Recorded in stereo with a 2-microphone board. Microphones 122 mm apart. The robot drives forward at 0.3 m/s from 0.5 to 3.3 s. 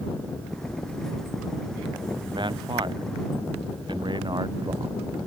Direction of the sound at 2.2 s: 40° right (ahead or behind).